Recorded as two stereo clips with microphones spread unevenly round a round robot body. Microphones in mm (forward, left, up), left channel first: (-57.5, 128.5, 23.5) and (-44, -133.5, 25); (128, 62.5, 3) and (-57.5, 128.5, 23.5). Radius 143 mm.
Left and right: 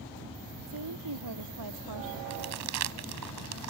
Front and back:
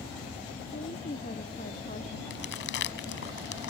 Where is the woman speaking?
80° right; by 2.2 s 90° right.